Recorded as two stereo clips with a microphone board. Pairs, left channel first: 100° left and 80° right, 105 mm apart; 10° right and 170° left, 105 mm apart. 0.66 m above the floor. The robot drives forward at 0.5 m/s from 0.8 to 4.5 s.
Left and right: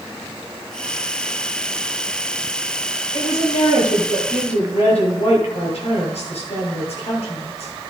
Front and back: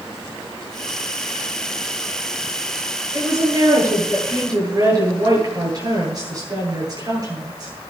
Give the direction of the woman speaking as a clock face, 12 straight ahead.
8 o'clock.